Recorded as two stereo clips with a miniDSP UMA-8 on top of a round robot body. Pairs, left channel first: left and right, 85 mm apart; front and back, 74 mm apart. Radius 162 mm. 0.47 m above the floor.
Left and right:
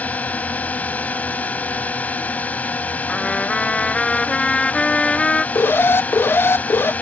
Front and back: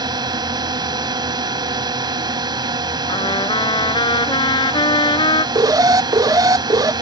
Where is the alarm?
150° left.